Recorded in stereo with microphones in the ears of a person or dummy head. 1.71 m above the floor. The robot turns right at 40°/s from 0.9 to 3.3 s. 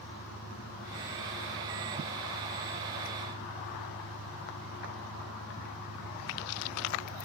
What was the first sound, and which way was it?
An engine running, 150° left.